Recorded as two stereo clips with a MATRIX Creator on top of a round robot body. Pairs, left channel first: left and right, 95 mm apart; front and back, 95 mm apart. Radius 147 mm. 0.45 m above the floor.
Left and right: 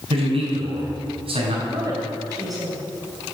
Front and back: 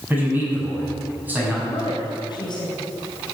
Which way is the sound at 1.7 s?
45° right.